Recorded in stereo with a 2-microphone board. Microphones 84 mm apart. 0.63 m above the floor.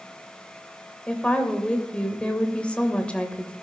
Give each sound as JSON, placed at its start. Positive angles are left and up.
{"t": 1.1, "sound": "a woman speaking", "side_deg": 15, "distance_m": 3.0}